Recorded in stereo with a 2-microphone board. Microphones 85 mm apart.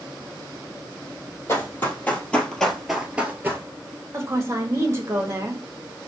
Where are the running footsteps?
30° left (ahead or behind), 1.7 m; by 3.6 s 30° right (ahead or behind), 1.0 m.